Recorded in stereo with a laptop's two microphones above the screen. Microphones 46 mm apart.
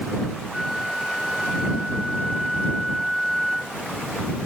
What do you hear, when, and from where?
0.5 s a flute: 5° right (ahead or behind)